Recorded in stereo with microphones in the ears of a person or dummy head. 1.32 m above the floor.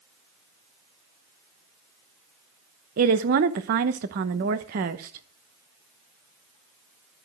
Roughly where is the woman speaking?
Right.